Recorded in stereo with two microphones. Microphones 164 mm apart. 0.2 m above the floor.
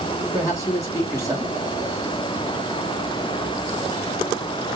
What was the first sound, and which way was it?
A man speaking, 20° left (ahead or behind).